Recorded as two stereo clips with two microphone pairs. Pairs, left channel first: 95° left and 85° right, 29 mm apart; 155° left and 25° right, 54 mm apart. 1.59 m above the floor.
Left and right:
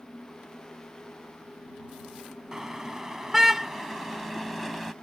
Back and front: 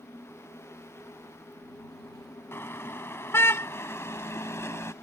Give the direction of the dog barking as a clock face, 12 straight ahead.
No dog barking in this recording.